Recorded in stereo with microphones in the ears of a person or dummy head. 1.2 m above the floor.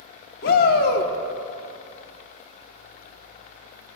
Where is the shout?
55° left (ahead or behind), 1.0 m.